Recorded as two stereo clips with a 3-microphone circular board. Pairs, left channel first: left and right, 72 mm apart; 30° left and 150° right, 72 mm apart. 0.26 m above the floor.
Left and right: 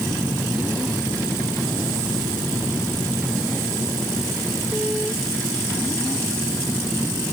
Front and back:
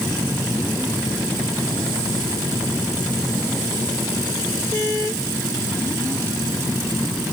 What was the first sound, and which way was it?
Only background noise.